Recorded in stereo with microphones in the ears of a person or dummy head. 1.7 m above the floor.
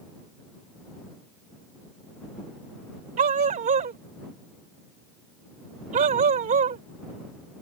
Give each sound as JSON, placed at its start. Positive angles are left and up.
{"t": 3.2, "sound": "a dog barking", "side_deg": -50}